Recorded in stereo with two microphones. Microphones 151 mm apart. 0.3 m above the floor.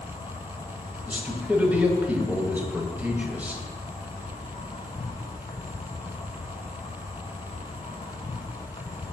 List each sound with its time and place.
0.0 s an insect: 35° left (ahead or behind), 1.2 m
1.1 s a man speaking: 10° right (ahead or behind), 1.4 m